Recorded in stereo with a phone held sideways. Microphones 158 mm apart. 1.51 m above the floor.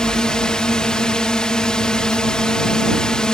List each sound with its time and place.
0.0 s a drone: 5° left (ahead or behind)